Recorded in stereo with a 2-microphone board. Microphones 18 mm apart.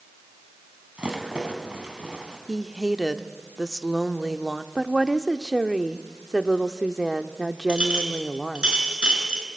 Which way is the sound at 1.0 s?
75° right (ahead or behind).